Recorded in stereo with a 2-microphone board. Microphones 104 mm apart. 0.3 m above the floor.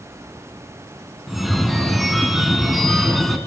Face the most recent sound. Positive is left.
turn(degrees=0)  # may be behind; listen again after turning